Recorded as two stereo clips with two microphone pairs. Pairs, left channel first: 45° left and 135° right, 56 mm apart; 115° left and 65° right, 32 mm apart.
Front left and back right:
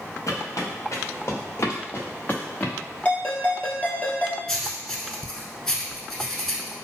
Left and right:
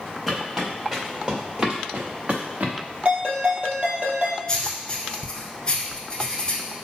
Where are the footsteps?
20° left, 2.0 m; by 2.7 s 20° right, 1.1 m.